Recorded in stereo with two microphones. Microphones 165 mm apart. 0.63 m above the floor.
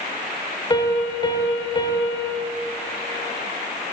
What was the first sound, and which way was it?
A piano, 30° left (ahead or behind).